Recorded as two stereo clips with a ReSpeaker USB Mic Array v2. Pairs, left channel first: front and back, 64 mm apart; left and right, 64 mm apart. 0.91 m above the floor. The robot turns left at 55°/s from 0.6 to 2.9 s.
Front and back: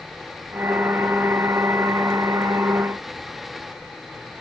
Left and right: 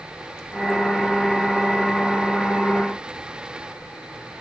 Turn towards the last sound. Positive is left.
No sound to turn to.